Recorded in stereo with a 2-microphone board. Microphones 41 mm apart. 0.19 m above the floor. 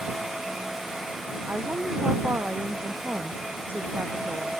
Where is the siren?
I don't hear a siren.